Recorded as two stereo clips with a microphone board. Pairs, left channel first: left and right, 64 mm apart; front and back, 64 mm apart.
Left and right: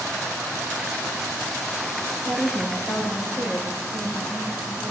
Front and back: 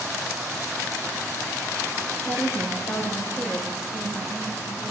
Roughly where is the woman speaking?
Ahead left.